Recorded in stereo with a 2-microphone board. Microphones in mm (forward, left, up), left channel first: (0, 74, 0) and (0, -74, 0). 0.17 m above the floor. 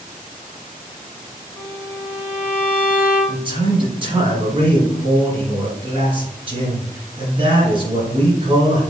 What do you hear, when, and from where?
1.6 s a violin: 15° left (ahead or behind), 1.6 m
3.3 s a man speaking: 35° right (ahead or behind), 2 m